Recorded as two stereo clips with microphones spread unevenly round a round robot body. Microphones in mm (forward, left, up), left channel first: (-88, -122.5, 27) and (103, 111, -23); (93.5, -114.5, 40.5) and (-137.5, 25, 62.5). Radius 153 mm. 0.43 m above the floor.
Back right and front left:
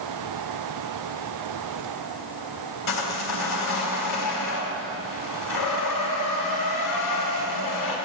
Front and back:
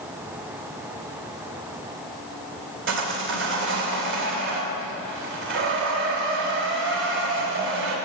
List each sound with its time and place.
2.9 s sawing: 170° right, 3 m